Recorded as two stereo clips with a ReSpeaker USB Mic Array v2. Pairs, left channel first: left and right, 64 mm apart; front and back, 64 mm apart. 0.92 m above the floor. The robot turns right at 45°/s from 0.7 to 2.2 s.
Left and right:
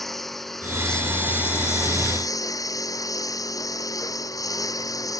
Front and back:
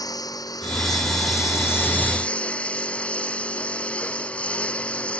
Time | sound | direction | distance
0.0 | a lawn mower | straight ahead | ?